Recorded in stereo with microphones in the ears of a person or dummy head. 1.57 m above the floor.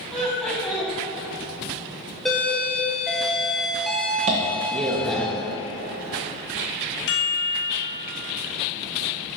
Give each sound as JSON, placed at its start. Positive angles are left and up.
{"t": 0.1, "sound": "laughter", "side_deg": 5, "distance_m": 1.9}
{"t": 2.2, "sound": "a doorbell", "side_deg": 0, "distance_m": 0.8}
{"t": 4.3, "sound": "tapping", "side_deg": -25, "distance_m": 0.9}
{"t": 7.1, "sound": "a chime", "side_deg": 60, "distance_m": 0.8}